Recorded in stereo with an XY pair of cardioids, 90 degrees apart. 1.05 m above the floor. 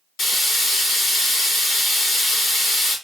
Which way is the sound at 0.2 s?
65° left.